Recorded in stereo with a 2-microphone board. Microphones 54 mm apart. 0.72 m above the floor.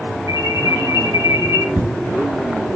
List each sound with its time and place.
0.3 s an alarm: 75° right (ahead or behind), 6 m
1.8 s an explosion: 40° right (ahead or behind), 5 m